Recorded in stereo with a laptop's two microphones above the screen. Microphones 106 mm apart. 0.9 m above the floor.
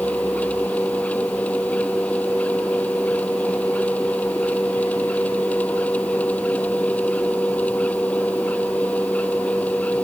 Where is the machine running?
15° left (ahead or behind).